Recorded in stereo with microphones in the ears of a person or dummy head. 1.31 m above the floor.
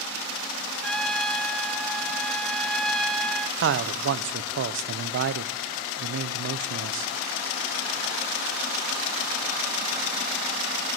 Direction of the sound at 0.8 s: 5° left (ahead or behind).